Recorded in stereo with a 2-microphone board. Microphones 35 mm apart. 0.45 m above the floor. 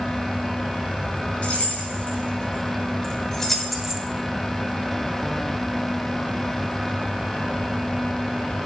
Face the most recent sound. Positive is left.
turn(degrees=-20)  # may be behind; listen again after turning